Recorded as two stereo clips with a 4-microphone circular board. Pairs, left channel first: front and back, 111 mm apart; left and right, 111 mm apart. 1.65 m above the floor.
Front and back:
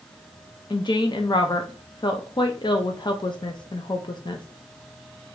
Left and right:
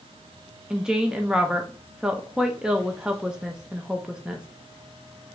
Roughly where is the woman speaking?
Ahead.